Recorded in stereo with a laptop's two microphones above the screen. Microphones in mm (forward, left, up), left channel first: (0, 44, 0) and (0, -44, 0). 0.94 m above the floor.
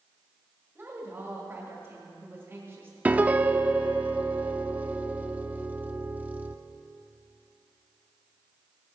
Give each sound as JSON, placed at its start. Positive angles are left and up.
{"t": 0.8, "sound": "a woman speaking", "side_deg": -25, "distance_m": 2.0}
{"t": 3.0, "sound": "a piano", "side_deg": -15, "distance_m": 0.7}